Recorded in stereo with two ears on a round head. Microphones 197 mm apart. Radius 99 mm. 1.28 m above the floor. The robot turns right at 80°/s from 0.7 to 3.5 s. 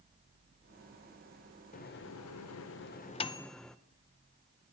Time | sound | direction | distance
1.7 | a microwave | 35° left (ahead or behind) | 0.5 m